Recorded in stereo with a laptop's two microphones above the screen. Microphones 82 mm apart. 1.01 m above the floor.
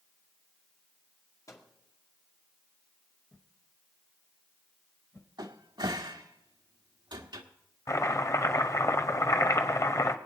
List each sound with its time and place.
1.5 s a microwave: 45° left (ahead or behind), 2 m
3.3 s a whoosh: 30° left (ahead or behind), 1.2 m
5.4 s a cupboard door: 65° right (ahead or behind), 1.6 m
7.9 s chopping: 40° left (ahead or behind), 1.0 m